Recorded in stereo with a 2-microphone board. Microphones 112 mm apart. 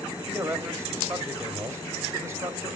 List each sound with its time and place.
0.2 s a man speaking: 25° right (ahead or behind), 1.5 m